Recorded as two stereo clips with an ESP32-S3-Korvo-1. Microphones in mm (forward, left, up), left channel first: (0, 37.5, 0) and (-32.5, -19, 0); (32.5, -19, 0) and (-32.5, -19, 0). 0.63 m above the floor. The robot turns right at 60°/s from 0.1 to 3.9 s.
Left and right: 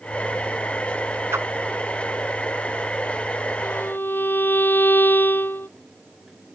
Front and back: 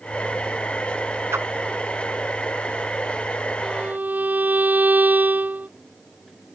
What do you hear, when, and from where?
1.3 s a whoosh: 150° right; by 1.5 s 145° right
3.6 s a violin: 100° left; by 5.7 s 115° left